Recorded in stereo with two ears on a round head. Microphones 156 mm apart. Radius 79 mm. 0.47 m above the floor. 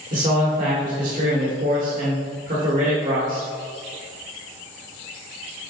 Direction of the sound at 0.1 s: 50° right (ahead or behind).